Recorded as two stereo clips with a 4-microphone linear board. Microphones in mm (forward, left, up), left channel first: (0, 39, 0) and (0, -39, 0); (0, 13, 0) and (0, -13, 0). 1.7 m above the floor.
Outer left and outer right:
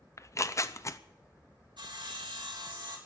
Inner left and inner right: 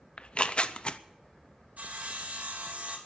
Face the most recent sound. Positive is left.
turn(degrees=-80)